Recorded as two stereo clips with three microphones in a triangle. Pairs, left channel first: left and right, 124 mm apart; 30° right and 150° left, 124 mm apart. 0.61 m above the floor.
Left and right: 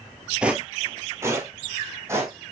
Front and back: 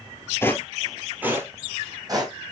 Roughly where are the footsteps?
Ahead.